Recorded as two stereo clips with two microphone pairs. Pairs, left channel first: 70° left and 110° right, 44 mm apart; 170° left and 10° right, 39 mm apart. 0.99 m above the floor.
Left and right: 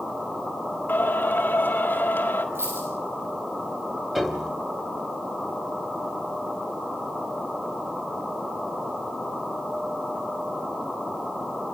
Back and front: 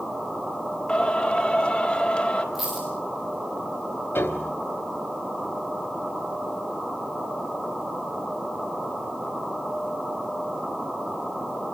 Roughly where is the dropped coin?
Right.